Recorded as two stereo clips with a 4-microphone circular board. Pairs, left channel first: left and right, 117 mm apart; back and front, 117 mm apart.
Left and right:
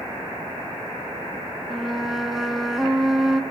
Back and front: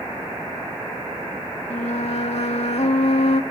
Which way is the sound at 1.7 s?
175° right.